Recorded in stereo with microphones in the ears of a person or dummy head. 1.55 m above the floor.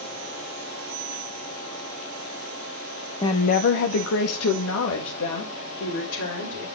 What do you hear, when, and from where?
3.2 s a woman speaking: 20° left (ahead or behind), 0.8 m; by 6.7 s 70° left (ahead or behind), 4.5 m